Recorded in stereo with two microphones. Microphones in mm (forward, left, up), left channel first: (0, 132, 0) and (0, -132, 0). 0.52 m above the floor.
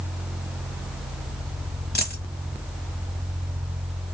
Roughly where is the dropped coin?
Left.